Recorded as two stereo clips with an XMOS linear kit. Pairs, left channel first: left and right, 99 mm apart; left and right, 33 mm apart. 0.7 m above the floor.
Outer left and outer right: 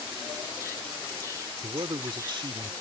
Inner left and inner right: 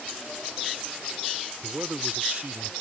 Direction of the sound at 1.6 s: 55° right (ahead or behind).